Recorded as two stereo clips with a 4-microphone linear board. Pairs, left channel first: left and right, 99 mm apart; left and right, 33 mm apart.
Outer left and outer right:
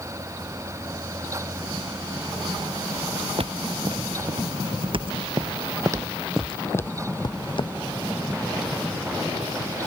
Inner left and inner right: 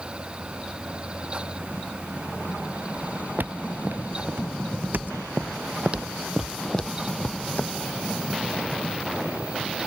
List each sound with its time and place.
3.4 s footsteps: 75° right (ahead or behind); by 7.7 s 60° left (ahead or behind)